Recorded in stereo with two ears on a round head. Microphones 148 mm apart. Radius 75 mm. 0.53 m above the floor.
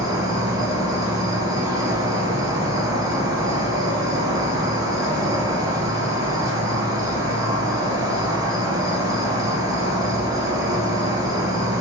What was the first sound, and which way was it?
An insect, 20° right (ahead or behind).